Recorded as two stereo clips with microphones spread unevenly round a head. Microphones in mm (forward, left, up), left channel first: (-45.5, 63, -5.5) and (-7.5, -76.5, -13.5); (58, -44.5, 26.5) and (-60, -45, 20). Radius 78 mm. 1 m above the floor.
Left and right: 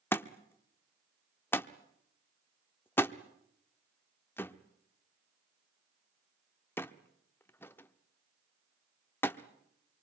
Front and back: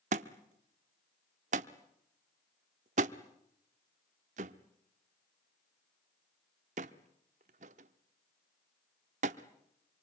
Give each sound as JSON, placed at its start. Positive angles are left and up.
{"t": 0.1, "sound": "a thud", "azimuth_deg": 175, "distance_m": 0.8}